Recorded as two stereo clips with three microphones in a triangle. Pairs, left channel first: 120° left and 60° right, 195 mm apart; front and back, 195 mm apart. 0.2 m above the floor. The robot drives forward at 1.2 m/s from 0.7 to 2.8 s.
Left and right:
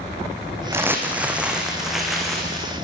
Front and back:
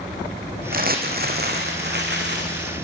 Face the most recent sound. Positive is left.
turn(degrees=-155)